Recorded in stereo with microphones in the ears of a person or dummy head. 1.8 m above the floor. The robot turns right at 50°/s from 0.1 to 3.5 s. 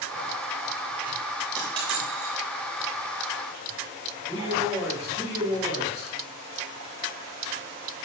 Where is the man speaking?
15° left (ahead or behind), 4 m.